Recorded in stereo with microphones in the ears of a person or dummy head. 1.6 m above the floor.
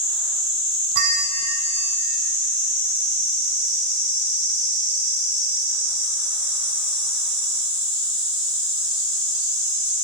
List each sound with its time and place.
0.9 s a bell: 60° right (ahead or behind), 1.6 m